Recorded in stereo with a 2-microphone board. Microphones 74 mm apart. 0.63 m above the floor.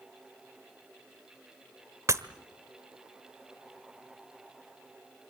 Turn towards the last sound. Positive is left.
turn(degrees=-45)  # may be behind; listen again after turning